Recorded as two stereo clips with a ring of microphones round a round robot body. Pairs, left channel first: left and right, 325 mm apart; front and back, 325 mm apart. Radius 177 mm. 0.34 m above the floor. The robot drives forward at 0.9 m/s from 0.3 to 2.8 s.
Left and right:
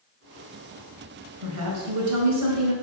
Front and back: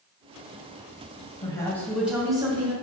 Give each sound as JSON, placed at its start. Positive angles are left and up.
{"t": 1.4, "sound": "a woman speaking", "azimuth_deg": -70, "distance_m": 2.0}